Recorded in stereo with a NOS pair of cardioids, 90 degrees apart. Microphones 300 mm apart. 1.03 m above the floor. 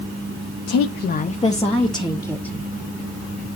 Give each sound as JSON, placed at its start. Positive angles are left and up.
{"t": 0.7, "sound": "a woman speaking", "azimuth_deg": 65, "distance_m": 0.8}